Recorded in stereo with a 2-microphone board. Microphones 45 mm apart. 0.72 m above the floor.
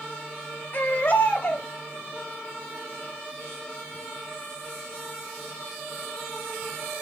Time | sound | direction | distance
0.7 | a baby crying | 50° left (ahead or behind) | 2.0 m